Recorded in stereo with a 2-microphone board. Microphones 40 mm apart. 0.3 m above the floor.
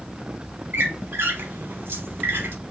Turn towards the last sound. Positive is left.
turn(degrees=-75)  # may be behind; listen again after turning